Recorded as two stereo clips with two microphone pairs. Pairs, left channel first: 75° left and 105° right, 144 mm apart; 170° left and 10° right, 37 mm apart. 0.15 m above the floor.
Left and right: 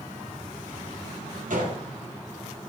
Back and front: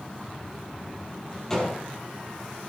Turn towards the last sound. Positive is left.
turn(degrees=-115)